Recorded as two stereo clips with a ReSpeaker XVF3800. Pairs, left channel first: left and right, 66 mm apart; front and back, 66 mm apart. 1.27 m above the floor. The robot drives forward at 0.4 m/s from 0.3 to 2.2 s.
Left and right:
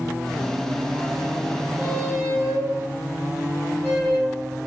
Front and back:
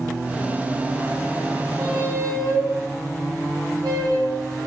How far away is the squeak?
About 5 m.